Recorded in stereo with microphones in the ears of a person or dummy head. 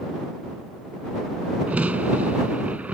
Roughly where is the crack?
Centre.